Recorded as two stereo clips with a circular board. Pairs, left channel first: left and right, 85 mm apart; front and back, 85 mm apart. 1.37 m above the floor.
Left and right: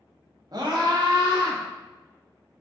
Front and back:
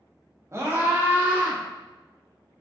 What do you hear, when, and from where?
0.5 s a scream: 125° right, 1.1 m; by 1.6 s 110° right, 1.9 m